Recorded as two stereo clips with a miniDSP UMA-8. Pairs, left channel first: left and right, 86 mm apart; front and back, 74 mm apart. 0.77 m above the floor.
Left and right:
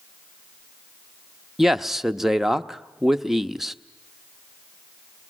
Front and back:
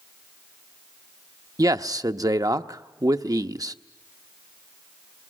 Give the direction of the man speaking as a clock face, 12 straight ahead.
6 o'clock.